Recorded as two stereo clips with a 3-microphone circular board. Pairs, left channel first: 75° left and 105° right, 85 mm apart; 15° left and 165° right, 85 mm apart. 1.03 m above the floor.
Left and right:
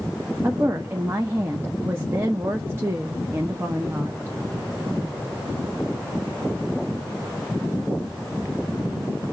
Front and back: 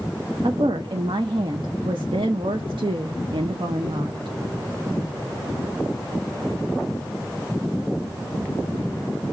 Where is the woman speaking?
165° right, 0.7 m.